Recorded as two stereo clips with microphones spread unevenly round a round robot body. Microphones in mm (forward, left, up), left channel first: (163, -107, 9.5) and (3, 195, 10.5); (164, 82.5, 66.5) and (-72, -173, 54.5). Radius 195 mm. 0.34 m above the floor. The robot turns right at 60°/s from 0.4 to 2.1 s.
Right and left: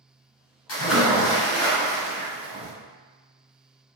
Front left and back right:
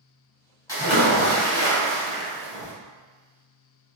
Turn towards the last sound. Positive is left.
turn(degrees=50)